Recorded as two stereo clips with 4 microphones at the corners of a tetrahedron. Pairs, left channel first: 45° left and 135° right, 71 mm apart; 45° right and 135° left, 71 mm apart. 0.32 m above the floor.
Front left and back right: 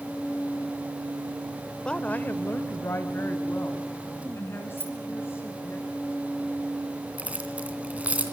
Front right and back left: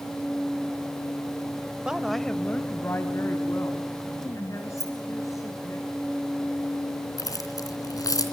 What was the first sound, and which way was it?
A woman speaking, 95° left.